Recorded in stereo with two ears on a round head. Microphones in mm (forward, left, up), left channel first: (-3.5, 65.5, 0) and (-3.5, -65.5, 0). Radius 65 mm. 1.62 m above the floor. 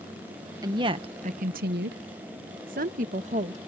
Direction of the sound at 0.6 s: 25° right (ahead or behind).